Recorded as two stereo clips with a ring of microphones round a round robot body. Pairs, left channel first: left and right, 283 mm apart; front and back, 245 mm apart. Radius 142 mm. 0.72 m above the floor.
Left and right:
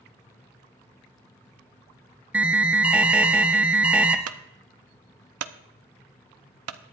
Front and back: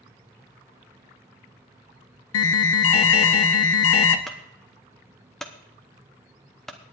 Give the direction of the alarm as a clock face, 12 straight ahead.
12 o'clock.